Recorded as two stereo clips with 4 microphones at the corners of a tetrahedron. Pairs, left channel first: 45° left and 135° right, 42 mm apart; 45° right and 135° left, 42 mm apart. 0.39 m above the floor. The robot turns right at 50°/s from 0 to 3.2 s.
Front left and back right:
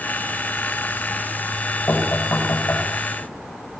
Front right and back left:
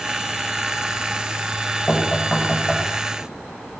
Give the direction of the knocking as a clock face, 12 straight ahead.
11 o'clock.